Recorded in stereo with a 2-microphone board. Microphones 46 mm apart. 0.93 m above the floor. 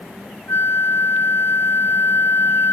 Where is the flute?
65° left (ahead or behind), 0.6 m.